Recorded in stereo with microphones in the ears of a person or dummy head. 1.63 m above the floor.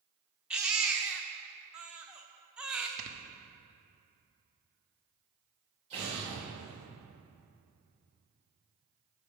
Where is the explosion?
40° right (ahead or behind), 2.5 m.